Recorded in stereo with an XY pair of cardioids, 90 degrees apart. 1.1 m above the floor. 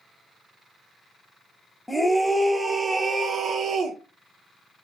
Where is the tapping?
I don't hear tapping.